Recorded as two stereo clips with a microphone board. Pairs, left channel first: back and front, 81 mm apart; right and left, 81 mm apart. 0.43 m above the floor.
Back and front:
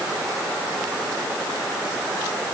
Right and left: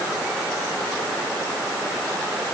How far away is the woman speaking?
No woman speaking in this recording.